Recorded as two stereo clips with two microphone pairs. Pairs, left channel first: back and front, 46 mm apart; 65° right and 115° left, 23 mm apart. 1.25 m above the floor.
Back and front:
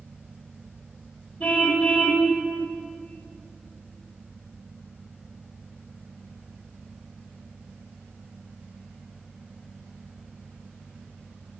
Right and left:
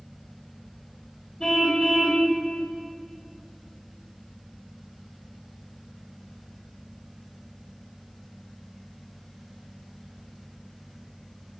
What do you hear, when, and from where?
1.4 s a car horn: 125° right, 2.5 m